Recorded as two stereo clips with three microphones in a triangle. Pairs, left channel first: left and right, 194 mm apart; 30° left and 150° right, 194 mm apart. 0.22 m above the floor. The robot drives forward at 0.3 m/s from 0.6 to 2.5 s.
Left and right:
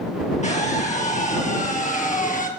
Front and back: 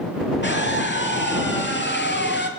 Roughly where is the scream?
Ahead left.